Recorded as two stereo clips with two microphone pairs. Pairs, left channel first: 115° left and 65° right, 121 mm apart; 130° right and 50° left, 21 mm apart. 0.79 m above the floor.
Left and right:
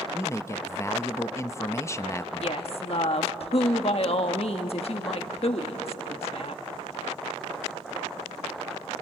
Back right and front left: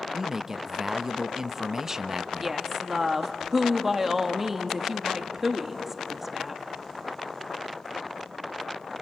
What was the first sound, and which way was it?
A man speaking, 95° left.